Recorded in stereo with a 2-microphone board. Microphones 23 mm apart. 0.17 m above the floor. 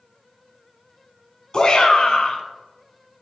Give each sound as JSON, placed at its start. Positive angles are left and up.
{"t": 1.5, "sound": "a shout", "side_deg": 35, "distance_m": 1.2}